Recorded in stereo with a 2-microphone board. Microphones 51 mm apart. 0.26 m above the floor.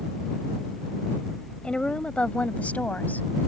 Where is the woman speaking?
20° left (ahead or behind); by 3.3 s 35° left (ahead or behind).